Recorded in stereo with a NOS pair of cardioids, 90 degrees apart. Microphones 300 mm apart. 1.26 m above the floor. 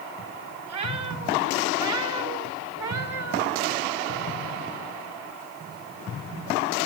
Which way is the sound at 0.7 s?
65° right.